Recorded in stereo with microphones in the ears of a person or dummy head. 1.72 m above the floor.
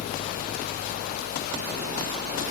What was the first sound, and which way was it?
Only background noise.